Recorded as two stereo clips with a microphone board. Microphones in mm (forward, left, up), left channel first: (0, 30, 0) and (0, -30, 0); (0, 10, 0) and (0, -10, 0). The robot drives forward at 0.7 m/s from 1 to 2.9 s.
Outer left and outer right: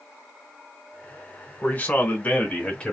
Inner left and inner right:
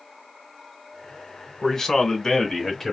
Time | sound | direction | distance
1.6 | a man speaking | 30° left (ahead or behind) | 1.0 m